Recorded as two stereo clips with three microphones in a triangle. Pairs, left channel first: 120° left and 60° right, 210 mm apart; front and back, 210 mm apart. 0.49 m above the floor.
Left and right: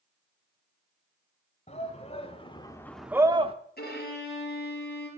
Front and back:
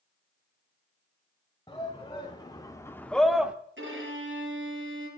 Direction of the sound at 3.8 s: 160° left.